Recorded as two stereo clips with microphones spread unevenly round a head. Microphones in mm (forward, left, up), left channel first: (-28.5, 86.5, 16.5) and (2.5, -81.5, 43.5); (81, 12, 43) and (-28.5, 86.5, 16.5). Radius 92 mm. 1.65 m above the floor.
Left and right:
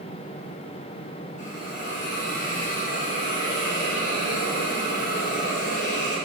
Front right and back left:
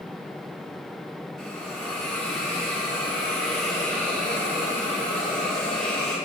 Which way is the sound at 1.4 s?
50° left.